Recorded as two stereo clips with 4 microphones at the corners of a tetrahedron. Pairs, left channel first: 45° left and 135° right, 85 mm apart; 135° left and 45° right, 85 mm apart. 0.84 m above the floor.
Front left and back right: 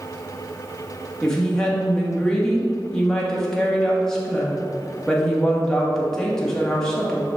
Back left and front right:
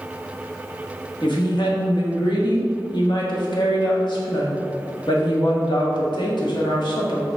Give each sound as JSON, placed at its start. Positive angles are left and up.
{"t": 1.2, "sound": "a woman speaking", "azimuth_deg": 125, "distance_m": 1.4}